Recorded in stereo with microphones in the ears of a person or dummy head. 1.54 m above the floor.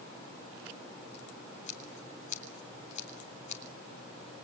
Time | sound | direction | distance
1.7 | scissors | 45° left (ahead or behind) | 2.5 m